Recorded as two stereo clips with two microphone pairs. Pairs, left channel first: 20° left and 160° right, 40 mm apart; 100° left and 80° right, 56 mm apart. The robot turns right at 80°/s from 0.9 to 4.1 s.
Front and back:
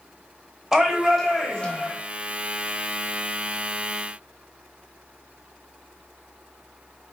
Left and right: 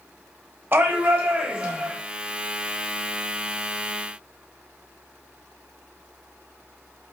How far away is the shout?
About 1.0 m.